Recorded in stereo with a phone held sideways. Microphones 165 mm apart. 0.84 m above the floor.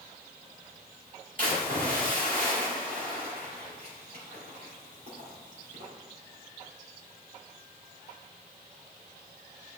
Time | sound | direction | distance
1.4 | a splash | 60° right (ahead or behind) | 2.5 m